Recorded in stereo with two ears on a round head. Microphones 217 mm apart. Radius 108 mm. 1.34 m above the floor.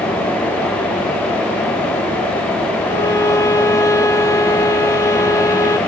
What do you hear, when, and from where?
2.9 s a violin: 15° left (ahead or behind), 0.8 m